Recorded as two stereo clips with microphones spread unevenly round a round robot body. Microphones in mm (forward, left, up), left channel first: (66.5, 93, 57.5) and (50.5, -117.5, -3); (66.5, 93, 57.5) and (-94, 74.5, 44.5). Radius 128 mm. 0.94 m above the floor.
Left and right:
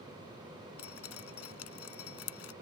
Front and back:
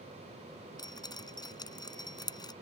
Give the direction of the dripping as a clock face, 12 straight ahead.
10 o'clock.